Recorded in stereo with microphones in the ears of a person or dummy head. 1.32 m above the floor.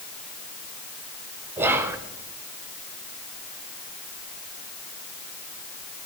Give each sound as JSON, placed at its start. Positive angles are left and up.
{"t": 1.6, "sound": "whispering", "side_deg": -15, "distance_m": 0.6}